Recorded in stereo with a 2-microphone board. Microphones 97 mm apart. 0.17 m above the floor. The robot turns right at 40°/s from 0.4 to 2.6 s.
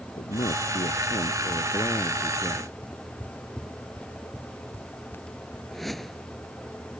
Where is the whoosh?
Centre (ahead or behind).